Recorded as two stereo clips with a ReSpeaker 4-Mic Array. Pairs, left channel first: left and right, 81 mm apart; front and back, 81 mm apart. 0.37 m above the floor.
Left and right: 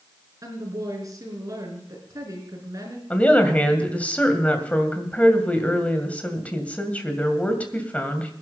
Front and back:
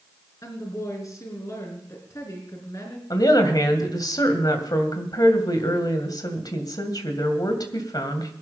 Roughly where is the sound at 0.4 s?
Ahead right.